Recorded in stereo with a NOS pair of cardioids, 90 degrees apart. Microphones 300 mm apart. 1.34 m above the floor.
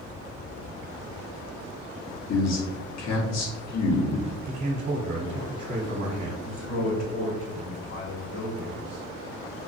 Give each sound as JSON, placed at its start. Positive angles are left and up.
{"t": 2.3, "sound": "a man speaking", "azimuth_deg": 65, "distance_m": 1.2}
{"t": 4.5, "sound": "a man speaking", "azimuth_deg": -55, "distance_m": 1.0}
{"t": 6.4, "sound": "a man speaking", "azimuth_deg": 50, "distance_m": 1.5}